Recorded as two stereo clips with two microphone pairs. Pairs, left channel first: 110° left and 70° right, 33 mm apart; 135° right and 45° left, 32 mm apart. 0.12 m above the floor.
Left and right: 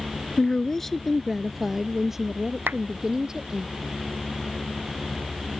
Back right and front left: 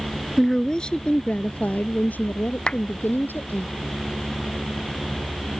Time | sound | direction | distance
0.4 | a woman speaking | 150° left | ?
2.7 | a clap | 75° right | ?